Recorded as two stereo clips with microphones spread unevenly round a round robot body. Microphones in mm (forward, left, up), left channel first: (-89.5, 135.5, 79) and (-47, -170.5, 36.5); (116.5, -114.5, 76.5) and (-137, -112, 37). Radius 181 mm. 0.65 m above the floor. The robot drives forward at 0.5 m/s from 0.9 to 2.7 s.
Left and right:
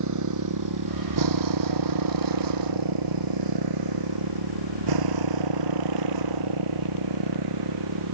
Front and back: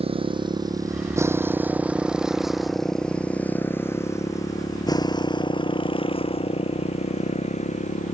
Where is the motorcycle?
110° right; by 8.1 s 60° right.